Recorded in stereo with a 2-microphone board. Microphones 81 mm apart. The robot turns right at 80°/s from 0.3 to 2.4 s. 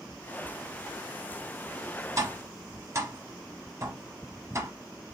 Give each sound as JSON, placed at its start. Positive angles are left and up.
{"t": 2.2, "sound": "tapping", "side_deg": -45, "distance_m": 1.0}